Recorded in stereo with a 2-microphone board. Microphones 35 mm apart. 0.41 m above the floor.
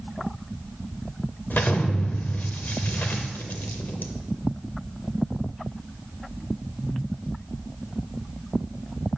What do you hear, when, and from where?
1.5 s an explosion: 60° left (ahead or behind), 0.5 m